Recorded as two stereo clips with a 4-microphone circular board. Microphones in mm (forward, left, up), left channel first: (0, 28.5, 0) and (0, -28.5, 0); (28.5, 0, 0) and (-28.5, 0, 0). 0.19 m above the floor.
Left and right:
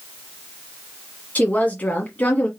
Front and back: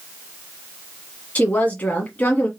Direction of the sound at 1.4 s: 45° left.